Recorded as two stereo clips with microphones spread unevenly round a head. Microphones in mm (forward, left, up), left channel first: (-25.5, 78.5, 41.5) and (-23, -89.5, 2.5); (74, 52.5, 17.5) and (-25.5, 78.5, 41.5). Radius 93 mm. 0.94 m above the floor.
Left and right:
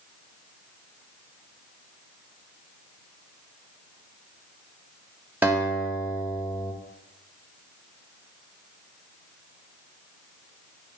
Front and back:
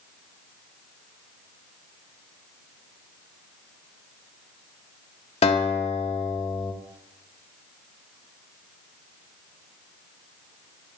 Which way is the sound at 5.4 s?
5° right.